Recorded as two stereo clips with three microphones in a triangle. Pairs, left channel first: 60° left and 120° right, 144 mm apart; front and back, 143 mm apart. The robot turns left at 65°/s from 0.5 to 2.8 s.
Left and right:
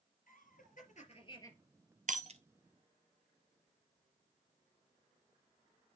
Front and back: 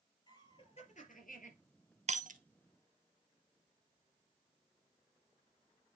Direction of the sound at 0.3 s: 55° left.